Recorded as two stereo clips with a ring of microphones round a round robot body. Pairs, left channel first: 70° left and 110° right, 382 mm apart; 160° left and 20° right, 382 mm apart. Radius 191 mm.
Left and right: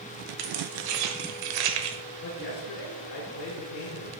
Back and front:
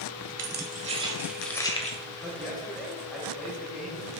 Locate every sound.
0.4 s keys jangling: 85° right, 1.4 m; by 2.0 s 135° right, 1.1 m
2.2 s a man speaking: 70° left, 1.5 m